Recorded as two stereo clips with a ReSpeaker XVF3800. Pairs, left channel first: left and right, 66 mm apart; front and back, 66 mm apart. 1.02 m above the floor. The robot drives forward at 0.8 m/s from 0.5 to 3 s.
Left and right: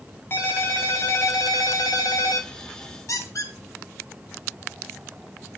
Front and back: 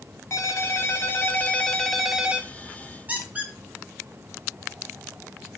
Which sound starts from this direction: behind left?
A squeak, at 3.1 s.